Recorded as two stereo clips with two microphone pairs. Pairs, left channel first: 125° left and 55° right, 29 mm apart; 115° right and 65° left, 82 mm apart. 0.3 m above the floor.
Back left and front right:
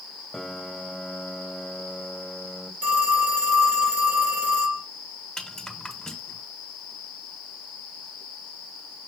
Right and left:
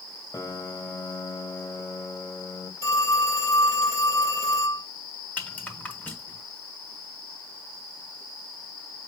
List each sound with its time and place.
0.3 s a piano: 145° right, 1.3 m
2.8 s a phone ringing: 70° right, 4 m
5.4 s a rattle: 175° right, 1.6 m